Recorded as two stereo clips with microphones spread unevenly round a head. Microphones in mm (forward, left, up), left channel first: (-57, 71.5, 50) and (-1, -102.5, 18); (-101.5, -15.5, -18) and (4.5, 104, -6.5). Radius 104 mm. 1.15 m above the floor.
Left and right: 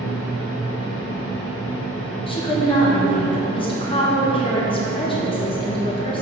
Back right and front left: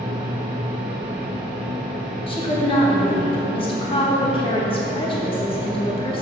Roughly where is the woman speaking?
Behind.